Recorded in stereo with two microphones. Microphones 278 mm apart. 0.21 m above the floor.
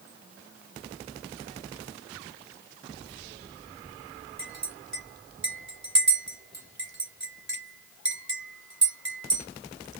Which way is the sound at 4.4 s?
40° right (ahead or behind).